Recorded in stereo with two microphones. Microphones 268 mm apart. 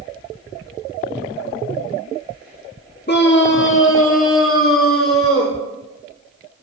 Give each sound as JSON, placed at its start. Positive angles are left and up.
{"t": 3.1, "sound": "a scream", "side_deg": 40, "distance_m": 1.2}